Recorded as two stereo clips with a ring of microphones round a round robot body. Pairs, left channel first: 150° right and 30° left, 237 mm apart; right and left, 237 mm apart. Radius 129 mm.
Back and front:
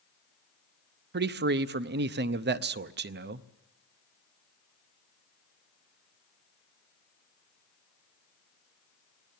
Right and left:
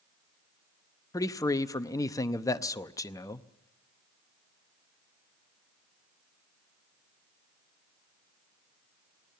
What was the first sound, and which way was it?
A man speaking, 15° right.